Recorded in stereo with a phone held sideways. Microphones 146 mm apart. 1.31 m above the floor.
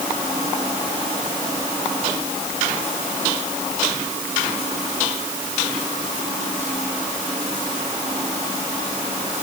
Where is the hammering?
No hammering in this recording.